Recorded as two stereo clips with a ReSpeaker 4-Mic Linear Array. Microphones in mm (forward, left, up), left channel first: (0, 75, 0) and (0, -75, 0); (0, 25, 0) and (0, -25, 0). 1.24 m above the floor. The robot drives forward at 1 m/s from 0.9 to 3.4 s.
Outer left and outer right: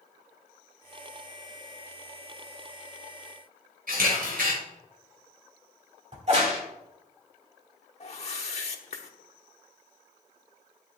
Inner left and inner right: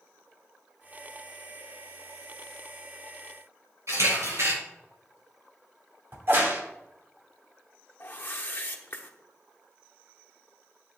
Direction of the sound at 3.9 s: 75° right (ahead or behind).